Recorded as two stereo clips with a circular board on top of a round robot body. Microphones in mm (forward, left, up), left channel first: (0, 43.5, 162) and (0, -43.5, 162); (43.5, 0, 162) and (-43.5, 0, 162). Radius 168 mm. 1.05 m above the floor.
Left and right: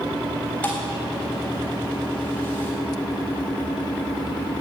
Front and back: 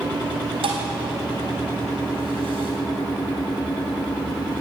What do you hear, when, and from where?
0.6 s a thud: 165° left, 3.5 m